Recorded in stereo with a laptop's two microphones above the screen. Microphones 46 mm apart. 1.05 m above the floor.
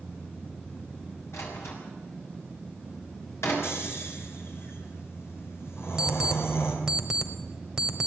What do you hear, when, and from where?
1.3 s a door slam: 85° left, 6.5 m
3.6 s snoring: 65° left (ahead or behind), 3.5 m
6.0 s an alarm clock: 10° right (ahead or behind), 1.8 m